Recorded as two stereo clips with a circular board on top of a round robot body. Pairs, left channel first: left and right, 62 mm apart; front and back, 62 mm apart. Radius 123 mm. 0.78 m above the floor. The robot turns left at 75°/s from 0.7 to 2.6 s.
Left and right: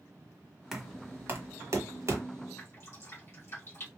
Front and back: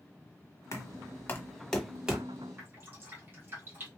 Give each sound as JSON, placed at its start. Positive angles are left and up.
{"t": 0.7, "sound": "knocking", "azimuth_deg": 0, "distance_m": 1.2}
{"t": 2.6, "sound": "dripping", "azimuth_deg": 130, "distance_m": 1.8}